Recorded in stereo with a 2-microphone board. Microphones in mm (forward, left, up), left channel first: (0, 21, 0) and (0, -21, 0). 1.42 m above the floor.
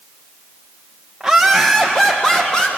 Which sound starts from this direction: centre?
Laughter, at 1.2 s.